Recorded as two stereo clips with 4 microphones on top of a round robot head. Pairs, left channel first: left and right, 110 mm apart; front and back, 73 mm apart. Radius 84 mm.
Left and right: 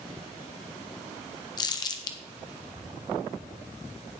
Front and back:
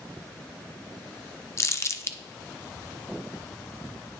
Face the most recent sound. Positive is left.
turn(degrees=40)